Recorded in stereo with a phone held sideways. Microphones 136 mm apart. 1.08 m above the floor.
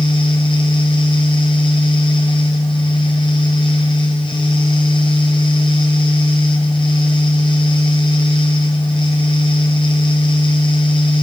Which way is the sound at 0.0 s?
35° left (ahead or behind).